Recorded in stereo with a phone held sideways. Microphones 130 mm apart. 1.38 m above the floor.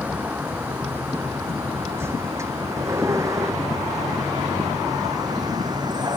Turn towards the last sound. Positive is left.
turn(degrees=-30)  # may be behind; listen again after turning